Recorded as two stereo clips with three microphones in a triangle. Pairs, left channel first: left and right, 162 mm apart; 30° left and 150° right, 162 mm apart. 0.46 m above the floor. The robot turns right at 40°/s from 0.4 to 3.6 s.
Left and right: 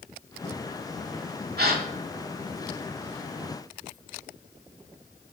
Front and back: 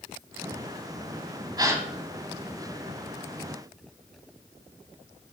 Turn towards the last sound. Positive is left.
turn(degrees=-5)